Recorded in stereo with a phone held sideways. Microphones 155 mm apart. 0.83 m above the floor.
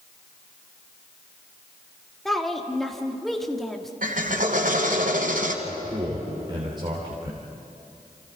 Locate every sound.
2.2 s a woman speaking: centre (ahead or behind), 2.0 m
4.0 s a drill: 65° right (ahead or behind), 2.5 m
5.6 s a man speaking: 30° right (ahead or behind), 3.5 m